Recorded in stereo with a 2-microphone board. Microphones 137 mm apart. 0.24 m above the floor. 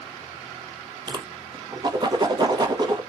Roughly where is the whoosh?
Right.